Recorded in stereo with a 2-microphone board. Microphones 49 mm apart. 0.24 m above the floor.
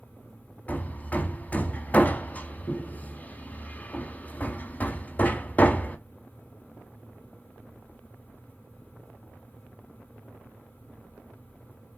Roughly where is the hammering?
Left.